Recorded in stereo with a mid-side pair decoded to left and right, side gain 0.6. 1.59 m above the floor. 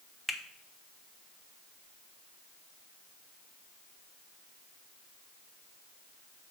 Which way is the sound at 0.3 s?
10° left.